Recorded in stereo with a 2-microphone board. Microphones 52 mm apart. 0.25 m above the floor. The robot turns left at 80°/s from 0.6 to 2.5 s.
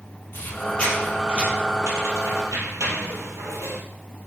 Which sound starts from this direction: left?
A squeak, at 0.3 s.